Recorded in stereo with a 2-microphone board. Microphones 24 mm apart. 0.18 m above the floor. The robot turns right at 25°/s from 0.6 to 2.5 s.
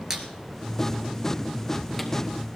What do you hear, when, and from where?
0.1 s a squeak: 25° right (ahead or behind), 2 m; by 2.1 s 10° left (ahead or behind), 2 m